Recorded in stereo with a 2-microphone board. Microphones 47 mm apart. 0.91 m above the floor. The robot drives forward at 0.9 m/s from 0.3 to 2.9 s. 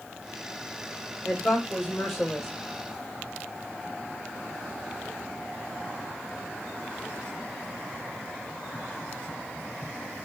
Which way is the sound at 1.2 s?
10° left (ahead or behind).